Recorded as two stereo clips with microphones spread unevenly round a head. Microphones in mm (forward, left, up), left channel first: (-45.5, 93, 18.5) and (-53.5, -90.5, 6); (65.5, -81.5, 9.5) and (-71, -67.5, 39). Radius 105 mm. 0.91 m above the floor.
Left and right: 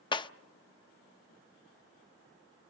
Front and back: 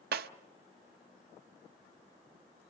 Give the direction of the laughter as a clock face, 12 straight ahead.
I don't hear laughter.